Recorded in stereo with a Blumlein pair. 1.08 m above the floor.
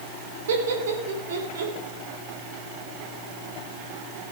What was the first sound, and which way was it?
Laughter, 60° right.